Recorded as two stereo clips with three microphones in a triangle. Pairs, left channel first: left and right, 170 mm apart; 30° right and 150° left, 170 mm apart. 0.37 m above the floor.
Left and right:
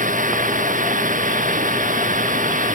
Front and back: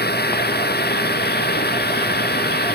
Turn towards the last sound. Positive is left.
turn(degrees=-50)